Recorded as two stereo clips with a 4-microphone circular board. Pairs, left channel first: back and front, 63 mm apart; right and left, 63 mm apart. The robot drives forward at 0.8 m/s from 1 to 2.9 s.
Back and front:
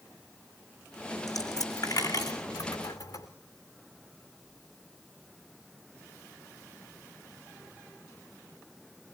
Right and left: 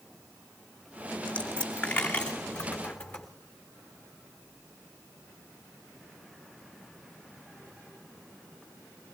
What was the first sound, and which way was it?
A dropped coin, 160° right.